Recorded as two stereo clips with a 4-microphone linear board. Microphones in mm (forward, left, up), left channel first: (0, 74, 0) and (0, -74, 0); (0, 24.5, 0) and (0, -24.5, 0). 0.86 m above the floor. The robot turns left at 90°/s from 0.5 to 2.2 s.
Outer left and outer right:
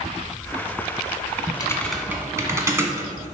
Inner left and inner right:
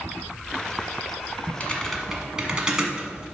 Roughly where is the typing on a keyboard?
Left.